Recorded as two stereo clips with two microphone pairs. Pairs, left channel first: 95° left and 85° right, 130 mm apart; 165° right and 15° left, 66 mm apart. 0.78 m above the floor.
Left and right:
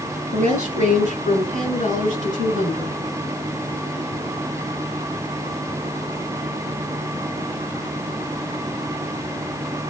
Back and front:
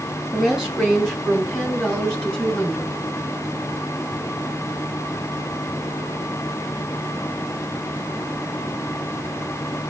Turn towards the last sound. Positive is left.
turn(degrees=-95)